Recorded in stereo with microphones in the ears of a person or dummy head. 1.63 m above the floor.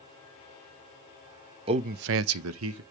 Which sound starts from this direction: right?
A man speaking, at 1.7 s.